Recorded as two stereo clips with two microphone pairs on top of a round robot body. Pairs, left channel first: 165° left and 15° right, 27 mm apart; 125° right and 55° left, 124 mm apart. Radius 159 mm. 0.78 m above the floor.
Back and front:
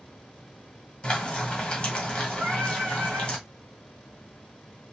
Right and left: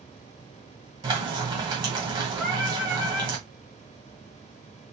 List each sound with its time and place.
1.0 s frying: 110° left, 2 m
2.4 s singing: 25° right, 0.6 m